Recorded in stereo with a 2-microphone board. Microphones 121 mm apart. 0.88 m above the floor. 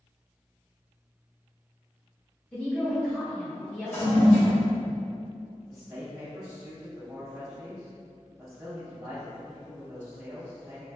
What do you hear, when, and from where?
2.5 s a woman speaking: 10° left (ahead or behind), 1.0 m
3.9 s a toilet flushing: 15° left (ahead or behind), 0.9 m
5.7 s a man speaking: 20° right (ahead or behind), 0.6 m